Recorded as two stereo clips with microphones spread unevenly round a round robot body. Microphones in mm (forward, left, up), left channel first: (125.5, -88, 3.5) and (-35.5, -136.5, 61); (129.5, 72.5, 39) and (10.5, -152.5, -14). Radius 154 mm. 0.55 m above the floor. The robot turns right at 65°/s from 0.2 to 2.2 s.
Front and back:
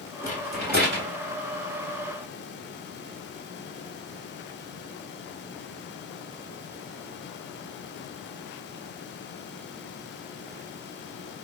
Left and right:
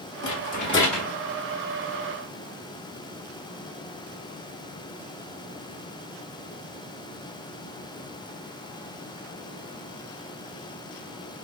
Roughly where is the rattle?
Left.